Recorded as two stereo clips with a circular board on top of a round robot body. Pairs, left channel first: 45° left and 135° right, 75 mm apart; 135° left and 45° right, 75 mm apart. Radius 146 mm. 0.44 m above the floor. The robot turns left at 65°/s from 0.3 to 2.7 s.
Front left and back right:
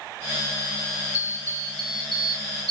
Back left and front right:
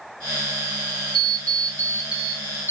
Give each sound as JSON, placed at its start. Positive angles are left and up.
{"t": 1.1, "sound": "an alarm clock", "azimuth_deg": -65, "distance_m": 1.1}